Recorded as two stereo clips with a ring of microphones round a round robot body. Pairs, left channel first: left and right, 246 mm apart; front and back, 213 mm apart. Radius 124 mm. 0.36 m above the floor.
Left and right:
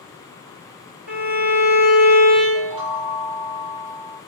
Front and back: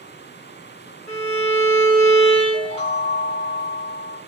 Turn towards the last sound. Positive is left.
turn(degrees=-35)